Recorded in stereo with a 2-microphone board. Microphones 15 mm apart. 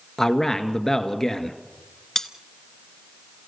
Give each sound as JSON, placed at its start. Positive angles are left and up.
{"t": 0.2, "sound": "a man speaking", "side_deg": 30, "distance_m": 1.7}
{"t": 2.1, "sound": "cutlery clinking", "side_deg": 35, "distance_m": 1.0}